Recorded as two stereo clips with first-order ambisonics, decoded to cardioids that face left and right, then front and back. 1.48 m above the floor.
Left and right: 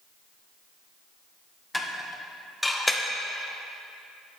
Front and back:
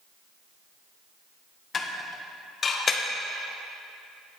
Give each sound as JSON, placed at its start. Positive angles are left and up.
{"t": 1.7, "sound": "dishes clattering", "azimuth_deg": 10, "distance_m": 0.5}